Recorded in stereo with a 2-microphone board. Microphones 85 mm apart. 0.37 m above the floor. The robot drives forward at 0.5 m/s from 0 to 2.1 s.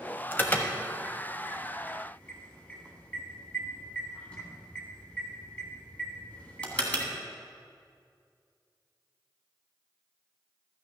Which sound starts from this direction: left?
An alarm, at 0.3 s.